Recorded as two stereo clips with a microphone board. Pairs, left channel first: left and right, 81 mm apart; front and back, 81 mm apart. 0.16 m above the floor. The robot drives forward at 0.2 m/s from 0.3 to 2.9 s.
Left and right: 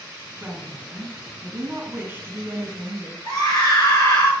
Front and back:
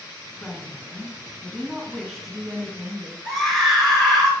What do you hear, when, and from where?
0.4 s a woman speaking: 65° right, 1.8 m; by 3.1 s 100° right, 1.8 m
3.2 s a scream: 85° left, 3 m